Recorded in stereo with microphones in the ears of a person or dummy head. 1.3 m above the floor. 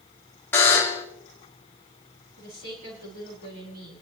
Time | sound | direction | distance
0.5 | a buzzer | 10° left (ahead or behind) | 1.9 m
2.4 | a woman speaking | 65° right (ahead or behind) | 4.5 m